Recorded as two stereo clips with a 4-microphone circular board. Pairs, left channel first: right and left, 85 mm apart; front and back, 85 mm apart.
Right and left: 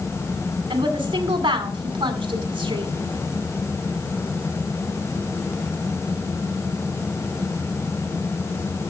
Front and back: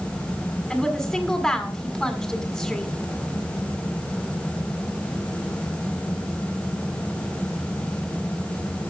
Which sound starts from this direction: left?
A woman speaking, at 0.7 s.